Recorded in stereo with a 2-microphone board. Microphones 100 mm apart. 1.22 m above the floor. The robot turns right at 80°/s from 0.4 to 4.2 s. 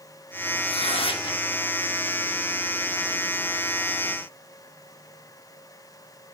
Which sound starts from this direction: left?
Tearing paper, at 0.7 s.